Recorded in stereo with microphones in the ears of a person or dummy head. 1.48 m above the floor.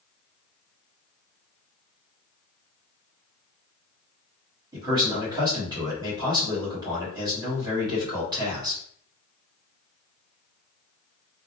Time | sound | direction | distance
4.7 | a man speaking | 20° right (ahead or behind) | 1.3 m